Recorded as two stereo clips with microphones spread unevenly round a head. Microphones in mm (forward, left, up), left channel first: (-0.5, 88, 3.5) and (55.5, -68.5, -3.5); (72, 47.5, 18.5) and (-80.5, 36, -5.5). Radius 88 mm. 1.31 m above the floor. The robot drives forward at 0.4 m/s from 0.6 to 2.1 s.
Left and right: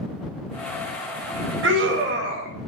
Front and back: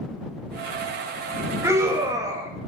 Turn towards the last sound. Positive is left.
turn(degrees=-105)